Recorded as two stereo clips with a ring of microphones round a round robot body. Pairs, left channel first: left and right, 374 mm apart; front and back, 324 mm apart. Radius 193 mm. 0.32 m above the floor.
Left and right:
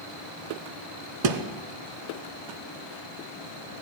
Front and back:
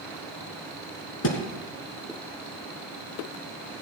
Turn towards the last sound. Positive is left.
turn(degrees=-55)